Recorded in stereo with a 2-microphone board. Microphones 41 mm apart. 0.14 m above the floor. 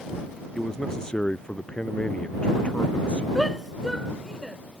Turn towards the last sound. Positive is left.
turn(degrees=0)  # may be behind; listen again after turning